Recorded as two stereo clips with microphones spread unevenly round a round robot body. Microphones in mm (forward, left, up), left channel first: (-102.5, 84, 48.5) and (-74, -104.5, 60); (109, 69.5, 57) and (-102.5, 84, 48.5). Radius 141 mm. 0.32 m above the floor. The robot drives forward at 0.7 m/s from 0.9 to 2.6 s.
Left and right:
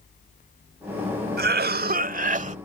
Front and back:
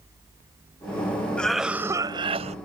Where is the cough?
90° right; by 2.5 s 130° right.